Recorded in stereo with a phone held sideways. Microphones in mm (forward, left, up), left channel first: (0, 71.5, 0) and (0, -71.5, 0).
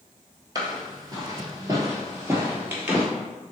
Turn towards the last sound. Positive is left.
turn(degrees=-15)  # may be behind; listen again after turning